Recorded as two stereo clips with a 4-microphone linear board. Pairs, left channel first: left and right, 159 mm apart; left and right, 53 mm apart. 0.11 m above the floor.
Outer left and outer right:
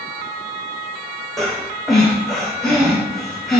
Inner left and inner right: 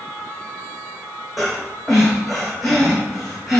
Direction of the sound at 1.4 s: Centre (ahead or behind).